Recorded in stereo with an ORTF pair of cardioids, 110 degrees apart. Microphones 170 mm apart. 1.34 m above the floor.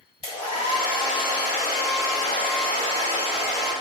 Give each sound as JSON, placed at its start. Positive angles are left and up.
{"t": 0.2, "sound": "a hair dryer", "azimuth_deg": 35, "distance_m": 1.9}